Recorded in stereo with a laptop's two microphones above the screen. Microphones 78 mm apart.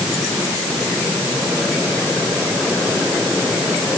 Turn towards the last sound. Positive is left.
No sound to turn to.